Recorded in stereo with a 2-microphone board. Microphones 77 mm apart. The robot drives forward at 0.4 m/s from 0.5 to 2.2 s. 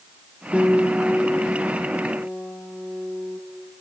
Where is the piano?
5° left (ahead or behind), 2.5 m.